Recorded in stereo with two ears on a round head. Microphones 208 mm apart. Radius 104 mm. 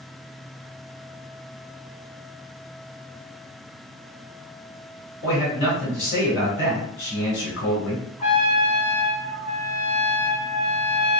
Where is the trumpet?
30° left (ahead or behind), 2.5 m.